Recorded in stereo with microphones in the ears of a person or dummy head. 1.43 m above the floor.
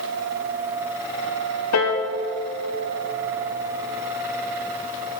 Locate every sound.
1.7 s a piano: 75° left (ahead or behind), 1.3 m